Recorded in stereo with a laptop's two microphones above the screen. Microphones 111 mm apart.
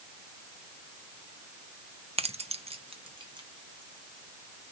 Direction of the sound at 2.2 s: 65° right (ahead or behind).